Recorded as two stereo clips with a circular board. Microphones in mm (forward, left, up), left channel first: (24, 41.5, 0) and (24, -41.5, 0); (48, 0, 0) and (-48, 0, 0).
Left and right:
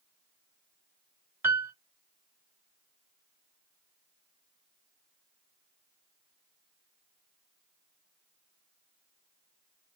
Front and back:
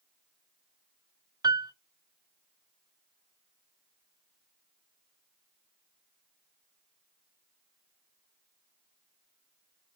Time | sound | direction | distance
1.4 | a piano | 145° right | 0.6 m